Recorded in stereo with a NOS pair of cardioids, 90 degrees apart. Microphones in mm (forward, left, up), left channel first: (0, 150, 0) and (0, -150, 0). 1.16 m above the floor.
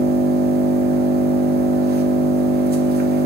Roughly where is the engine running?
Ahead right.